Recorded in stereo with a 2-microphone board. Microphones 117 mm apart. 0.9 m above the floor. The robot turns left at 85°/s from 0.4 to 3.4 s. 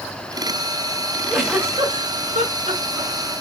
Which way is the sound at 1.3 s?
5° left (ahead or behind).